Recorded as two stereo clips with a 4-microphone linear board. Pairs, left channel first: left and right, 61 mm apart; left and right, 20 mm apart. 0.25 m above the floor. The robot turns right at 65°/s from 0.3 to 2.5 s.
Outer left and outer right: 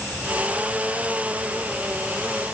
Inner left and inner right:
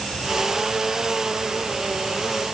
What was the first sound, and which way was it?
Only background noise.